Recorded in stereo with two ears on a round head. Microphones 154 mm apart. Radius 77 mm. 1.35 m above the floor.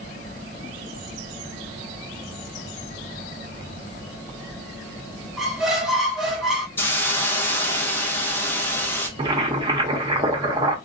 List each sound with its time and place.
5.4 s a squeak: centre (ahead or behind), 0.8 m
6.8 s a hiss: 10° left (ahead or behind), 0.6 m
9.2 s boiling: 25° right (ahead or behind), 0.6 m